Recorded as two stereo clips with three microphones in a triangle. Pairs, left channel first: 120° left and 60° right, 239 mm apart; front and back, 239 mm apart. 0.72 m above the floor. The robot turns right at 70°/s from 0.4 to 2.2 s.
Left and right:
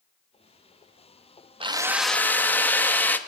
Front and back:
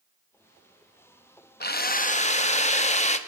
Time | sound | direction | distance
1.6 | a drill | straight ahead | 0.6 m